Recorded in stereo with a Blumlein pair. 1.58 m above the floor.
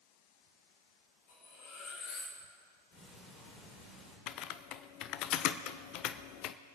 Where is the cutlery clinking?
45° left, 3.5 m.